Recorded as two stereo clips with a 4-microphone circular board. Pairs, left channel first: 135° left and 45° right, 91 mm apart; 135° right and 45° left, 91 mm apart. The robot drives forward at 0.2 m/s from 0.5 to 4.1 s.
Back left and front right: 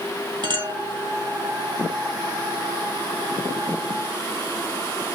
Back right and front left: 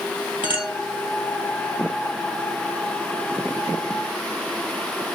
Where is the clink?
20° right, 1.8 m; by 0.7 s 25° right, 1.8 m.